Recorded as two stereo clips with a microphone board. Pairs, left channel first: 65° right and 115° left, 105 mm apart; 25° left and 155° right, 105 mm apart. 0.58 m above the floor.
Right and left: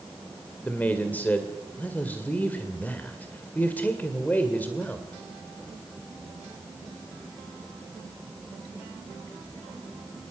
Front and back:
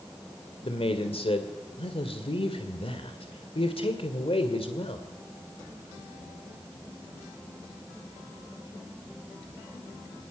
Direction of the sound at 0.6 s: 5° left.